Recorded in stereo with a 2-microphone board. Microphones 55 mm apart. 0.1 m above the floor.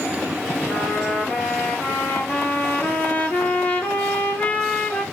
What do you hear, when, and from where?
0.7 s a trumpet: 35° left (ahead or behind), 2 m